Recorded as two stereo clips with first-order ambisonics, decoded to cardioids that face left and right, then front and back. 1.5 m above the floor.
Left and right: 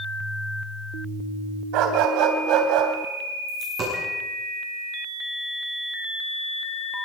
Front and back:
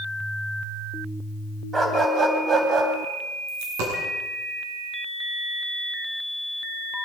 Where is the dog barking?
105° right, 3.5 m; by 2.9 s 125° right, 3.5 m.